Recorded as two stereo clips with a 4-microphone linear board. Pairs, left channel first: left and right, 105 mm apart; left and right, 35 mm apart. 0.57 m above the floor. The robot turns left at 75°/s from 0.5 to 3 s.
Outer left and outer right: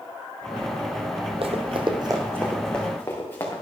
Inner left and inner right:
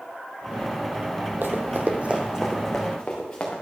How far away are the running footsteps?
About 1.2 m.